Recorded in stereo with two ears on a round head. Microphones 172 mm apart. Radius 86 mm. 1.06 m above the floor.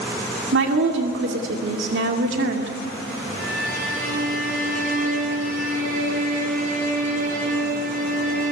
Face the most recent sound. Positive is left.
turn(degrees=-50)  # may be behind; listen again after turning